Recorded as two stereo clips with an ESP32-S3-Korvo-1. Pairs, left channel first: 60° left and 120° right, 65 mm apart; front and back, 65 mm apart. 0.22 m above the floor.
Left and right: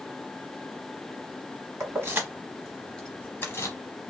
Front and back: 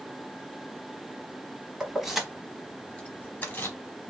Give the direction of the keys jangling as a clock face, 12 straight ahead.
4 o'clock.